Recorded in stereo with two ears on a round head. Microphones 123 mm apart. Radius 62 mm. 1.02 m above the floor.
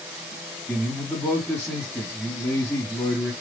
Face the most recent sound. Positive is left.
turn(degrees=20)  # may be behind; listen again after turning